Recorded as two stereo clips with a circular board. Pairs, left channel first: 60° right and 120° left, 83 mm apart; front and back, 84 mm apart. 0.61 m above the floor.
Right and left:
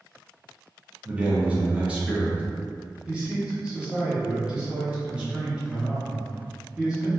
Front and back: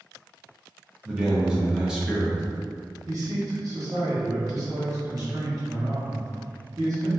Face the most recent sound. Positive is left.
turn(degrees=-170)